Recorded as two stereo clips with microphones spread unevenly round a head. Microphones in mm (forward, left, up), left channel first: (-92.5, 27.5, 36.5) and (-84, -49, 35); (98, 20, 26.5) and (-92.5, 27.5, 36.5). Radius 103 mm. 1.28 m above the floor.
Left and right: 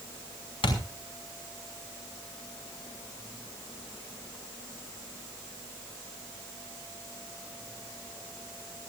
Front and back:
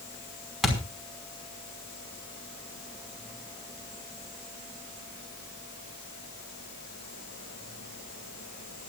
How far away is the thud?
About 5 m.